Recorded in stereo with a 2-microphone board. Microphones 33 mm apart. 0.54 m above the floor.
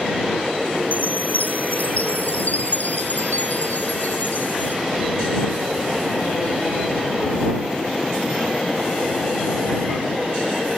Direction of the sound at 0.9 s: 55° left (ahead or behind).